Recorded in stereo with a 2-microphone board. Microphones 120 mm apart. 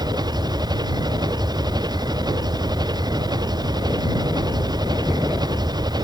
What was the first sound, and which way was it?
An engine running, 35° right (ahead or behind).